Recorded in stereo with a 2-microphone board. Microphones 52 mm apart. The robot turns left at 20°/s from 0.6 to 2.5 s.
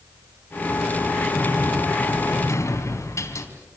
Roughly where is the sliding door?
Left.